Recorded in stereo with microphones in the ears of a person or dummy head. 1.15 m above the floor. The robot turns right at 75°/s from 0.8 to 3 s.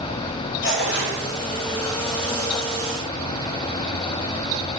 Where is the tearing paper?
65° left (ahead or behind), 6.5 m; by 1.2 s 85° left, 6.5 m.